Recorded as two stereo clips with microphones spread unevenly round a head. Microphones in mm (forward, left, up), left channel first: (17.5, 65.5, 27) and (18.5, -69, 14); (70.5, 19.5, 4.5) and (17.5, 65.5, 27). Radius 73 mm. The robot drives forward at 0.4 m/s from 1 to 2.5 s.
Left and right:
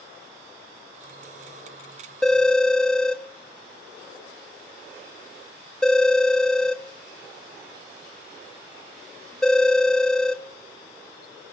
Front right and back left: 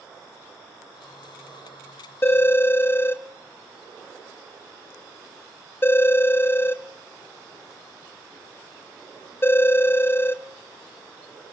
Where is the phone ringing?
15° left, 0.8 m; by 10.4 s 20° left, 0.8 m.